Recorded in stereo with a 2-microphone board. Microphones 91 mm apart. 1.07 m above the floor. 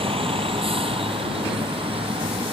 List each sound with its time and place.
0.0 s a vehicle: 85° right